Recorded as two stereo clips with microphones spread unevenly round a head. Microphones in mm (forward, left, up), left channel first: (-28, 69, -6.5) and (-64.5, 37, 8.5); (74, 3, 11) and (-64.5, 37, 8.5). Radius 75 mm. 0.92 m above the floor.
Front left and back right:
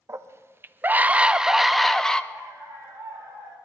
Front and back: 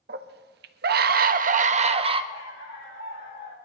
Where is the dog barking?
30° right, 8.5 m.